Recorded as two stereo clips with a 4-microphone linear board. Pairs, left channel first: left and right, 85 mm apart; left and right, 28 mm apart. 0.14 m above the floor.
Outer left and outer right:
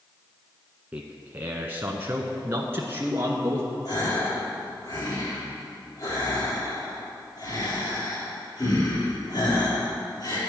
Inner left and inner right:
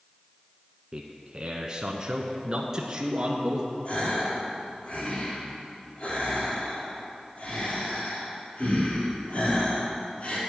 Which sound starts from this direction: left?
A gasp, at 3.9 s.